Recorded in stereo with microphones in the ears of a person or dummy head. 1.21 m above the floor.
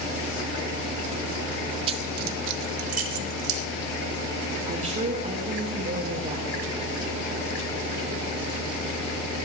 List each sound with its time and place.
1.9 s keys jangling: 30° right (ahead or behind), 0.5 m; by 3.6 s 75° right (ahead or behind), 1.5 m
4.7 s a woman speaking: 35° right (ahead or behind), 1.4 m